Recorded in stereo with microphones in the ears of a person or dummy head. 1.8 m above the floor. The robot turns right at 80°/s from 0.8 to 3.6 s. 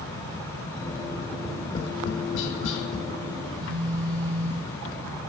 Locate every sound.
1.3 s tapping: 15° right (ahead or behind), 0.9 m; by 3.1 s 55° left (ahead or behind), 0.9 m
3.4 s a phone buzzing: 40° right (ahead or behind), 0.6 m; by 4.8 s 30° right (ahead or behind), 0.6 m